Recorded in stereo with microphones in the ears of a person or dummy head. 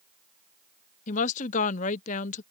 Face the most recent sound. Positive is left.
turn(degrees=40)  # may be behind; listen again after turning